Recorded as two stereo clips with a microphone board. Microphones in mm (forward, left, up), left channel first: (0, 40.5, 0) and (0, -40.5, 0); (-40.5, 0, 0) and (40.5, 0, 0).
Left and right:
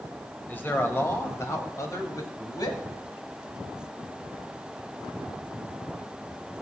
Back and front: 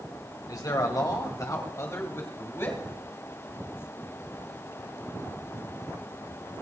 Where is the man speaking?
155° left, 2.5 m; by 2.8 s 125° left, 3 m.